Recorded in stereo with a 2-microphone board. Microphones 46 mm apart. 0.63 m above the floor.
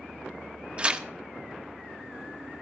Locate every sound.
0.8 s tearing paper: 25° right (ahead or behind), 0.7 m